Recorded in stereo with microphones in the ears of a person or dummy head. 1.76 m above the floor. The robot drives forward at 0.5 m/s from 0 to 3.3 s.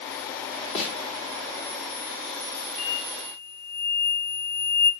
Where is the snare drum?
40° left (ahead or behind), 5 m.